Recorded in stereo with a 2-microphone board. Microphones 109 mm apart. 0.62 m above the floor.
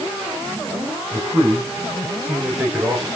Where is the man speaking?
25° right (ahead or behind), 10 m; by 3.1 s 20° right (ahead or behind), 9 m.